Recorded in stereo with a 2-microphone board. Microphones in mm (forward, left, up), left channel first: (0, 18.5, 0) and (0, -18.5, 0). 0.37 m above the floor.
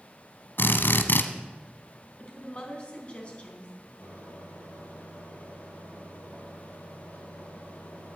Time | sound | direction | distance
0.6 | a drill | 75° left (ahead or behind) | 1.1 m
2.2 | a woman speaking | 35° left (ahead or behind) | 3.5 m
4.0 | a microwave | 60° left (ahead or behind) | 6 m